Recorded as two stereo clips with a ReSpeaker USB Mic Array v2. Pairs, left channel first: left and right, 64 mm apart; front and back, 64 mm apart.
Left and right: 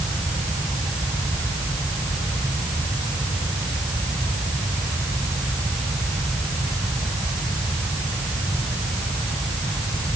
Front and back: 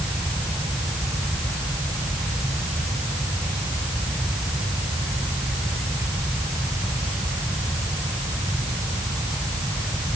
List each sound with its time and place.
Only background noise.